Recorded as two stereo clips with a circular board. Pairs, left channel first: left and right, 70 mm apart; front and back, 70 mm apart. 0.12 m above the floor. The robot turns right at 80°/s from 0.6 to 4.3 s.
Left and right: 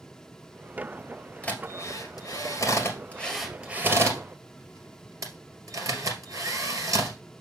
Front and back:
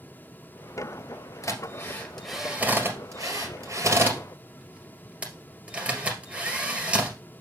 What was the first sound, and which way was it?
A drill, 20° left.